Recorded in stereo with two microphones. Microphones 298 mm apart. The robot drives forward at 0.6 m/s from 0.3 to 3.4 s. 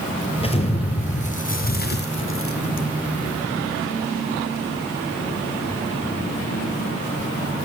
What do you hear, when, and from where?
0.4 s an explosion: 20° left (ahead or behind), 2.0 m; by 2.9 s 60° left (ahead or behind), 0.7 m